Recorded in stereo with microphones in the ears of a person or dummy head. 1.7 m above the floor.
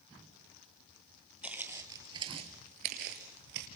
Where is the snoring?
No snoring in this recording.